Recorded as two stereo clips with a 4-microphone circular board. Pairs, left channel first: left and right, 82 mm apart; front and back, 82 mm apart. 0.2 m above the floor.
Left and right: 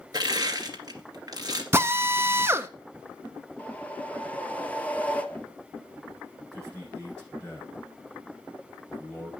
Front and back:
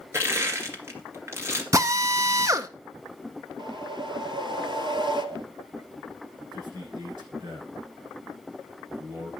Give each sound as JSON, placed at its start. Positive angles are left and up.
{"t": 0.1, "sound": "crushing", "azimuth_deg": -125, "distance_m": 2.0}
{"t": 1.7, "sound": "a drill", "azimuth_deg": -140, "distance_m": 0.6}
{"t": 3.6, "sound": "a whoosh", "azimuth_deg": 160, "distance_m": 0.8}
{"t": 6.5, "sound": "a man speaking", "azimuth_deg": 170, "distance_m": 8.0}